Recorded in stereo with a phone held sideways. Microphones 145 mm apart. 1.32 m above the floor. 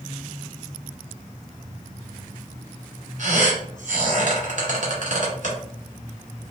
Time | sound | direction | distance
3.2 | a squeak | 60° right (ahead or behind) | 1.6 m